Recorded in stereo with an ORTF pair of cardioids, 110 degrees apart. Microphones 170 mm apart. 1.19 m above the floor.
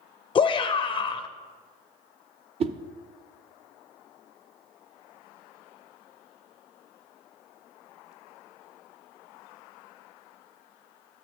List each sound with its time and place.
0.3 s a shout: 30° left, 0.5 m
2.6 s a whoosh: 35° right, 0.7 m